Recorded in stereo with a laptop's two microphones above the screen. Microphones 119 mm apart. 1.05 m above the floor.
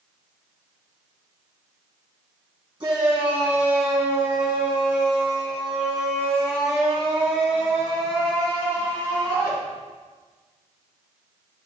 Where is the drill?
I don't hear a drill.